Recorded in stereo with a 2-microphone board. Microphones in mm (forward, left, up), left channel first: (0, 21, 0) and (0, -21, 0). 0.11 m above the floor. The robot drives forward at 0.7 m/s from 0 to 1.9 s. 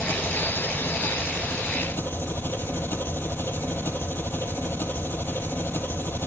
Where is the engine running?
60° left (ahead or behind), 1.9 m.